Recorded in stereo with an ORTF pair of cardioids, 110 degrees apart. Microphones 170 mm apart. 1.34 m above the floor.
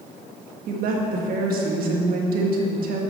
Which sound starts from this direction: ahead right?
A woman speaking, at 0.7 s.